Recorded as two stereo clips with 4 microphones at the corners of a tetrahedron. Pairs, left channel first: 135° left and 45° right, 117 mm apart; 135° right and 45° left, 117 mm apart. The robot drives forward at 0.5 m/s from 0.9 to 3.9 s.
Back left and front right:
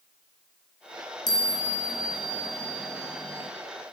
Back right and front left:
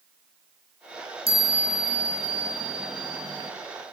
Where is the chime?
80° left, 5 m; by 3.5 s 95° left, 5 m.